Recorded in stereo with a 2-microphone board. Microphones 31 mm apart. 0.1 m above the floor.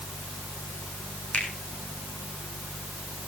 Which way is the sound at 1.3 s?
50° left (ahead or behind).